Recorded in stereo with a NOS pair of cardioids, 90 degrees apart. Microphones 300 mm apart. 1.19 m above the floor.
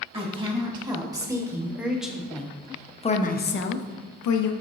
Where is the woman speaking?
20° right, 2 m; by 4.5 s 75° left, 0.8 m.